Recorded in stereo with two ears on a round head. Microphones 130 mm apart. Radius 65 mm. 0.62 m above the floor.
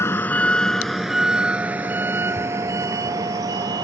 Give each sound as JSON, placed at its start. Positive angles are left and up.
{"t": 0.0, "sound": "a vehicle", "side_deg": 20}